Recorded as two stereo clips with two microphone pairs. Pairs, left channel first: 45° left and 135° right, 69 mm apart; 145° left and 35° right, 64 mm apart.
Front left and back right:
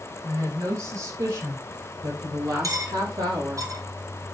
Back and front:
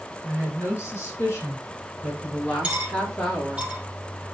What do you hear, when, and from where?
0.2 s a woman speaking: 165° right, 4.5 m; by 3.6 s 135° right, 4 m
2.6 s cutlery clinking: 105° right, 2.5 m